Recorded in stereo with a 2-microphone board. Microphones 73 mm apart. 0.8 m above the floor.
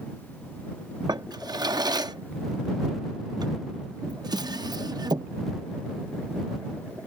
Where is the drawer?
70° right (ahead or behind).